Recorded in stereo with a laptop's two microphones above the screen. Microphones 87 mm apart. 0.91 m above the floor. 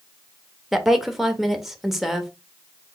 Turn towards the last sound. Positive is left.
turn(degrees=-5)  # may be behind; listen again after turning